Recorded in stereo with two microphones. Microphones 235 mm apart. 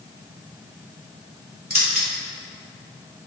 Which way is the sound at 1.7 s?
70° right (ahead or behind).